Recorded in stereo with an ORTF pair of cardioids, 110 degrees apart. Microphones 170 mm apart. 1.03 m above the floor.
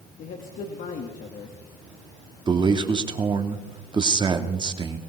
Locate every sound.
0.2 s a man speaking: 55° left, 2 m
2.5 s a man speaking: 30° right, 1.9 m